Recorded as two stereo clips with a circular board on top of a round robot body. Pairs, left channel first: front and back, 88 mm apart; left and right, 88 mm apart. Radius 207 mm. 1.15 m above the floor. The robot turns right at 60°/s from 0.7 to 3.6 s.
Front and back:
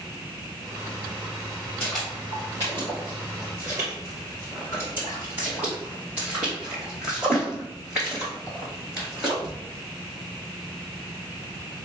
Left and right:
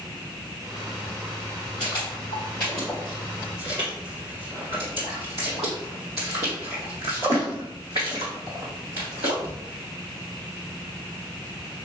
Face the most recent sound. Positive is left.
turn(degrees=-100)